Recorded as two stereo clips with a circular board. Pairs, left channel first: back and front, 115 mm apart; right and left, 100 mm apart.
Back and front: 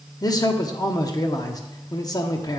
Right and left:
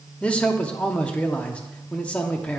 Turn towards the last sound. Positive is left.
turn(degrees=-160)